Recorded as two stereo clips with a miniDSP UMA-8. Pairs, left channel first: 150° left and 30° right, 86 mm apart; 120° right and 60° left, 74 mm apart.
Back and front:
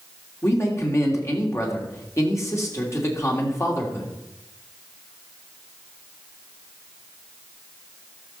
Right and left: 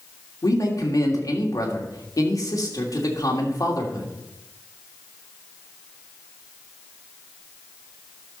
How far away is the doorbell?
No doorbell in this recording.